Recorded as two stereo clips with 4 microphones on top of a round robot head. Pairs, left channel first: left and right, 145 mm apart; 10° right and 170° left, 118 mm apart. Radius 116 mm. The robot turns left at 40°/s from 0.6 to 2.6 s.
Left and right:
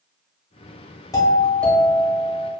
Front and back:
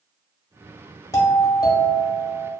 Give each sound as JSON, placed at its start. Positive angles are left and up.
{"t": 1.1, "sound": "a doorbell", "azimuth_deg": 40, "distance_m": 0.9}